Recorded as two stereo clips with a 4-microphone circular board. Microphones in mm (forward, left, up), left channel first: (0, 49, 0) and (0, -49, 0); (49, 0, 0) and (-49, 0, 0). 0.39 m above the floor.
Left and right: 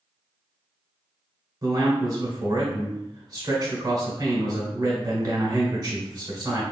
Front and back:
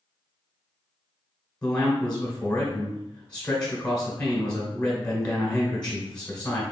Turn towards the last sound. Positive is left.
turn(degrees=-75)